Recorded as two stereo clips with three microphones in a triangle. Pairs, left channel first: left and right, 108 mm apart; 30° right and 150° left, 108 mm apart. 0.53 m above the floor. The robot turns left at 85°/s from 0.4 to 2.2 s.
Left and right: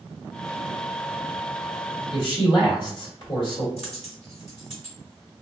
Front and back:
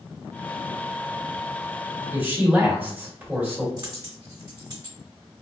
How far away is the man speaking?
About 1.2 m.